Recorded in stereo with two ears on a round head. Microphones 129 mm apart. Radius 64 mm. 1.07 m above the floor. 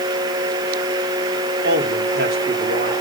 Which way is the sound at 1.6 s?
80° right.